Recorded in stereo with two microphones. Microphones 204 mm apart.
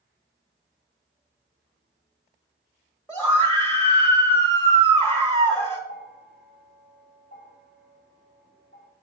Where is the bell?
40° left (ahead or behind), 2.5 m.